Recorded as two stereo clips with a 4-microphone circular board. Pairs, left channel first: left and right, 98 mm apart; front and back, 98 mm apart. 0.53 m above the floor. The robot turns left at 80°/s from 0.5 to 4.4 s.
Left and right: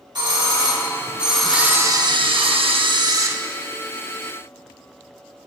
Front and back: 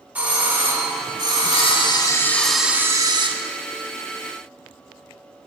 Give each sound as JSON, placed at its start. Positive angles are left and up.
{"t": 0.1, "sound": "a doorbell", "azimuth_deg": -110, "distance_m": 2.0}
{"t": 1.5, "sound": "a camera shutter", "azimuth_deg": -5, "distance_m": 0.7}